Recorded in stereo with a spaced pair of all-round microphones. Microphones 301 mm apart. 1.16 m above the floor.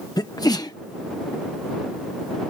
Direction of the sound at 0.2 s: 15° left (ahead or behind).